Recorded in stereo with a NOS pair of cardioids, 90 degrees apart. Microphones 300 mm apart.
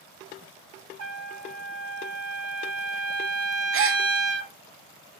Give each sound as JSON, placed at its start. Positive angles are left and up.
{"t": 1.0, "sound": "a trumpet", "azimuth_deg": -65, "distance_m": 1.8}
{"t": 3.7, "sound": "a gasp", "azimuth_deg": -45, "distance_m": 0.5}